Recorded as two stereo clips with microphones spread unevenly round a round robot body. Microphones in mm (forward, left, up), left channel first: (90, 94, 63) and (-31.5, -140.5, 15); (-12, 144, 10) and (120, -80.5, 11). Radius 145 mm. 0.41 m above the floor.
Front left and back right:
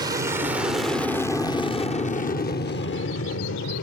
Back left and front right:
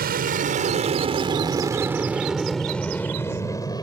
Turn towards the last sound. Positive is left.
turn(degrees=50)